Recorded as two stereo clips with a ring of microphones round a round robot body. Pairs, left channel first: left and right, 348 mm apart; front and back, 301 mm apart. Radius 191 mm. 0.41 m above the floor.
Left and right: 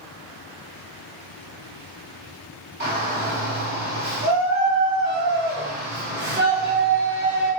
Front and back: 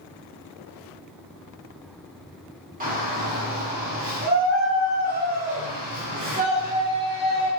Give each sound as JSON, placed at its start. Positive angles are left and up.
{"t": 2.8, "sound": "a shout", "azimuth_deg": -135, "distance_m": 1.5}